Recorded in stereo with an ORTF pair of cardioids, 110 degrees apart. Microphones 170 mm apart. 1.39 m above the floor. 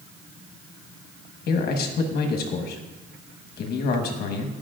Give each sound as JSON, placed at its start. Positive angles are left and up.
{"t": 1.5, "sound": "a man speaking", "azimuth_deg": 65, "distance_m": 1.3}